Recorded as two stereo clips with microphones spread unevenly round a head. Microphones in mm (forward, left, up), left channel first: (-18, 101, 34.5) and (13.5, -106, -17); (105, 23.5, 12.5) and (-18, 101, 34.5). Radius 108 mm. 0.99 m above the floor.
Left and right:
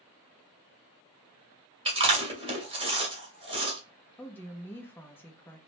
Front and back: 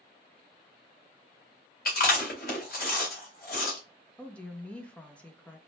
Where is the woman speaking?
5° right, 0.6 m.